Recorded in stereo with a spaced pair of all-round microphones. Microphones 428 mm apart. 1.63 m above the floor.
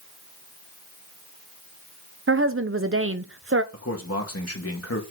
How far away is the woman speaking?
About 0.9 m.